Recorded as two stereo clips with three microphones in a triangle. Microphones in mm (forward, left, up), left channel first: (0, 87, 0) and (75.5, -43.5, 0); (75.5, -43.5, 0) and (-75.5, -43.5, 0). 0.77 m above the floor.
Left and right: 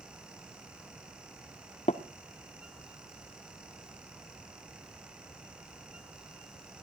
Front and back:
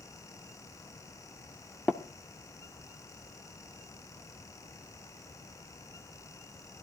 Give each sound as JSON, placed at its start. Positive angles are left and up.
{"t": 1.9, "sound": "tapping", "azimuth_deg": 80, "distance_m": 1.2}